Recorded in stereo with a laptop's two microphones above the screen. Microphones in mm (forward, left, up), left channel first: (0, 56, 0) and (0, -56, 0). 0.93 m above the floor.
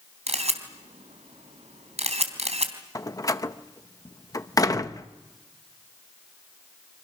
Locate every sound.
0.3 s a camera shutter: 80° right, 3.5 m
3.0 s a door slam: 30° left (ahead or behind), 0.7 m